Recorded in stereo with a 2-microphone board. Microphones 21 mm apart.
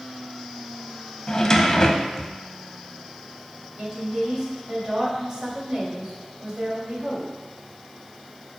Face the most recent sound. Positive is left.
turn(degrees=-35)  # may be behind; listen again after turning